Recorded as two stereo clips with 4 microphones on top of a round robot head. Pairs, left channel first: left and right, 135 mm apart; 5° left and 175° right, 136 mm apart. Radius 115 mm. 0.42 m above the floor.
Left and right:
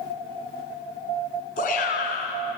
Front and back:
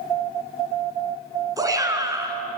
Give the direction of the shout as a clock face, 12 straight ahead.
8 o'clock.